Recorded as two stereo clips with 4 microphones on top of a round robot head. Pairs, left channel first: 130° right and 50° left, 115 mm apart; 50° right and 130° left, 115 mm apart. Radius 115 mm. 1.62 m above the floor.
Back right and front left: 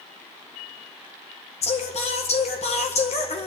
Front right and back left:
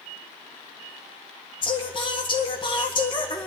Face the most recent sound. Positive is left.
turn(degrees=-100)